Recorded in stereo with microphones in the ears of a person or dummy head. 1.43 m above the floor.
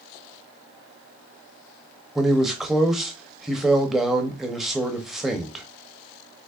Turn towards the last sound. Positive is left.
turn(degrees=-5)  # may be behind; listen again after turning